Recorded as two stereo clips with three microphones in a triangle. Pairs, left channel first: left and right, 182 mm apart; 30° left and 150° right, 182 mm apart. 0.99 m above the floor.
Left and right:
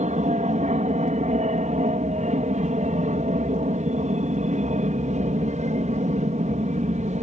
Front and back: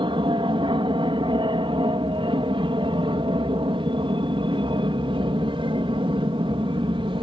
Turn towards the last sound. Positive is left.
turn(degrees=-105)